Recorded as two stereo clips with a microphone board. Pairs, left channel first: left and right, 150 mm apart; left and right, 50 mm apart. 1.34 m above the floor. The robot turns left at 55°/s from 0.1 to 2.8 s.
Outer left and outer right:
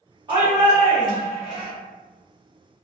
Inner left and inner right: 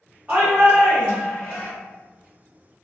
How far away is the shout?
About 1.0 m.